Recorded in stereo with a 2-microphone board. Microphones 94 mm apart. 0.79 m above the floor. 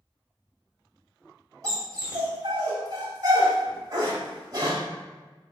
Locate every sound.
1.6 s a dog barking: 40° right (ahead or behind), 1.5 m